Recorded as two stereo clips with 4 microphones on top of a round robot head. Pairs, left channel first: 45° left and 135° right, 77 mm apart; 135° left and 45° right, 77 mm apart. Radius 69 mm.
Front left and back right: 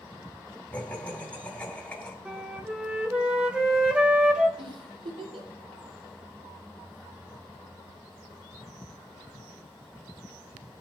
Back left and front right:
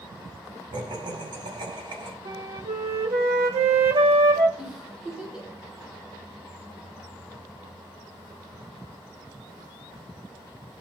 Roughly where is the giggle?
Behind right.